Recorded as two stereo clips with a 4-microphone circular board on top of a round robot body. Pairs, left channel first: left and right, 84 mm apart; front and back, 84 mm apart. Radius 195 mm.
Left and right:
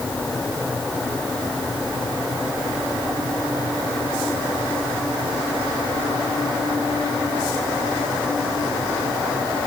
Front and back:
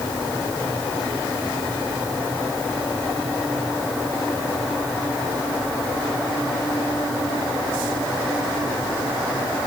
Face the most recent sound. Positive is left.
No sound to turn to.